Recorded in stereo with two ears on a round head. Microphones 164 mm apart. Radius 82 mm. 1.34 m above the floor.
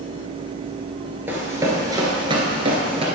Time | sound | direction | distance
1.3 | running footsteps | 15° right (ahead or behind) | 1.6 m